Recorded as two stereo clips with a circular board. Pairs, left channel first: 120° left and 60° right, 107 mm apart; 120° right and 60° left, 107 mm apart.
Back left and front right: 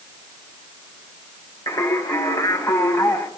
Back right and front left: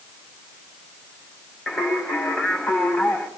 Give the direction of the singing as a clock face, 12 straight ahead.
7 o'clock.